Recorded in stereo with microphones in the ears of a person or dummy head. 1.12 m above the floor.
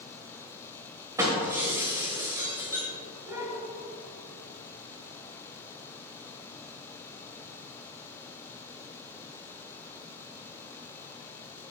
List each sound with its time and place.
1.2 s breaking glass: 20° right (ahead or behind), 1.6 m